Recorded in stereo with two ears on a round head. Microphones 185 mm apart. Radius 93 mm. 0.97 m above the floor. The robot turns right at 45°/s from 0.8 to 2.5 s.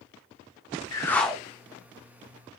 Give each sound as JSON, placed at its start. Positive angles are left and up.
{"t": 0.9, "sound": "a whoosh", "side_deg": 20, "distance_m": 0.5}